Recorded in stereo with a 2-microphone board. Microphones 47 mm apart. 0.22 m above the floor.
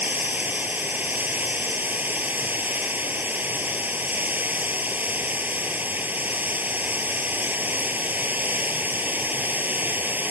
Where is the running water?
40° right (ahead or behind).